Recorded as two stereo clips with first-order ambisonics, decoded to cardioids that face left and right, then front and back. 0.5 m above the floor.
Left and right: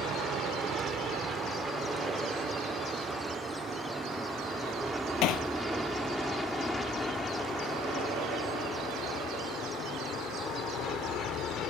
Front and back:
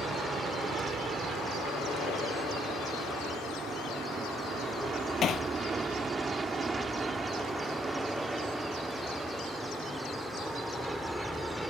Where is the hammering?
60° left.